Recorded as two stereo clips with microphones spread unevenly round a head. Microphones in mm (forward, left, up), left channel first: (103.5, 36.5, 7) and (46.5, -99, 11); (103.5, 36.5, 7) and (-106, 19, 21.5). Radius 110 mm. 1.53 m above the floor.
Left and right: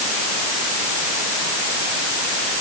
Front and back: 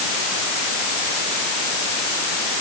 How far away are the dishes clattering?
No dishes clattering in this recording.